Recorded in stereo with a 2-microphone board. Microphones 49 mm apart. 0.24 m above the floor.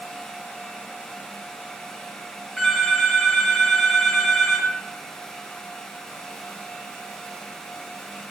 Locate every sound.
2.6 s a phone ringing: 5° left (ahead or behind), 4 m